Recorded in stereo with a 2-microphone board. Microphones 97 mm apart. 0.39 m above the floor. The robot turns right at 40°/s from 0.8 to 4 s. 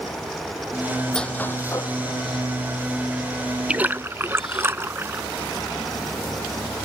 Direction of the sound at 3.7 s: 10° right (ahead or behind).